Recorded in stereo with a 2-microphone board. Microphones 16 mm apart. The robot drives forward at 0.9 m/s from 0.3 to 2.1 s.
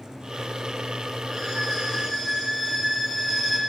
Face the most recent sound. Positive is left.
turn(degrees=-10)  # may be behind; listen again after turning